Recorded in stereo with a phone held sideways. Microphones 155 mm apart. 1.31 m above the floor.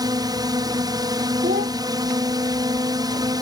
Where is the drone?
25° right (ahead or behind).